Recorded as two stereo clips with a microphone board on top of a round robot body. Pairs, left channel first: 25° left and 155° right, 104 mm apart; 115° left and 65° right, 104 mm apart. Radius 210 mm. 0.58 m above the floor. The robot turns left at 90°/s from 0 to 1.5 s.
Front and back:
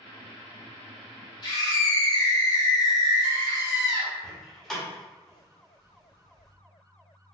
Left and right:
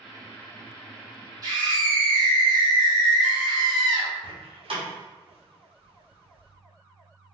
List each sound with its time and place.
1.4 s a scream: 20° right, 1.8 m; by 4.1 s 25° right, 1.8 m
4.2 s a door slam: 65° right, 1.3 m